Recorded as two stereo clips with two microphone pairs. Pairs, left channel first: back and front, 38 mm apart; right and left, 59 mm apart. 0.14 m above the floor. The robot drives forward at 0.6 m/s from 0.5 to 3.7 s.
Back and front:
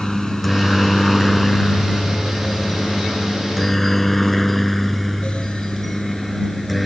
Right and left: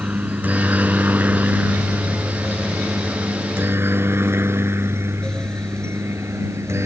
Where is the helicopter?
100° left; by 6.9 s 90° left.